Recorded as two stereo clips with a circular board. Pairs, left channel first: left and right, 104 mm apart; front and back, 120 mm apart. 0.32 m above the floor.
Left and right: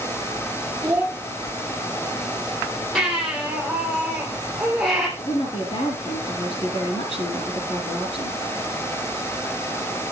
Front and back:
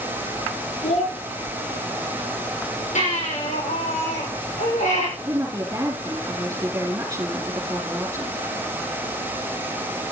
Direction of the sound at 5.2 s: 115° left.